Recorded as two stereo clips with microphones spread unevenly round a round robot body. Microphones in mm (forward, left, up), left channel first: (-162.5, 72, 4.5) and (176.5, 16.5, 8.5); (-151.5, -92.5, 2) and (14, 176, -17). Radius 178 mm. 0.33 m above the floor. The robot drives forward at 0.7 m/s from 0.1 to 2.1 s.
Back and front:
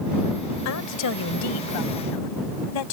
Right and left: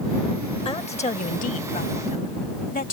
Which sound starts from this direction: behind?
A woman speaking, at 0.7 s.